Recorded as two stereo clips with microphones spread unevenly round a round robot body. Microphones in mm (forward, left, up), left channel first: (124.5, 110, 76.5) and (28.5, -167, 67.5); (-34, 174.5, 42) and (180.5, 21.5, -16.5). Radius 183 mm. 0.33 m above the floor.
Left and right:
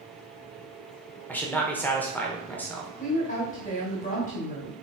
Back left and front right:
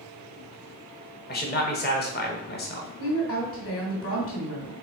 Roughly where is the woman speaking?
Behind left.